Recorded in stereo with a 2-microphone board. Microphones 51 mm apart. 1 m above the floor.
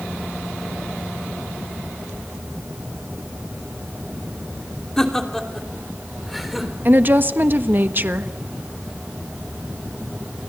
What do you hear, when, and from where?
5.0 s laughter: 10° left (ahead or behind), 3 m; by 6.8 s centre (ahead or behind), 4 m
6.8 s a woman speaking: 45° right (ahead or behind), 1.3 m